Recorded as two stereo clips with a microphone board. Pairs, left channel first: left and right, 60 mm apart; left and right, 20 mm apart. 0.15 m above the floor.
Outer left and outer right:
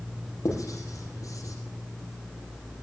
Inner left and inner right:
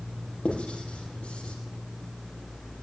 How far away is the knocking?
I don't hear knocking.